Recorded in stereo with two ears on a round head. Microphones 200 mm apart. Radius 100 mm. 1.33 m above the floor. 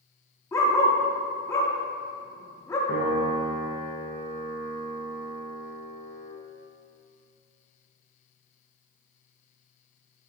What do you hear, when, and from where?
0.5 s a dog barking: 15° left (ahead or behind), 1.0 m
2.9 s a piano: 60° left (ahead or behind), 2.5 m